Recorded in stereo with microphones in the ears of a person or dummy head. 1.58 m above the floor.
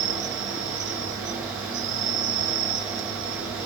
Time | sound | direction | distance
0.0 | an insect | 65° right (ahead or behind) | 0.9 m